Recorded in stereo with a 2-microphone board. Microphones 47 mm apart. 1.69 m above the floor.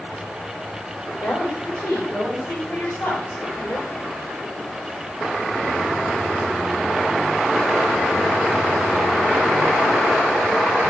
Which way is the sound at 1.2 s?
85° left.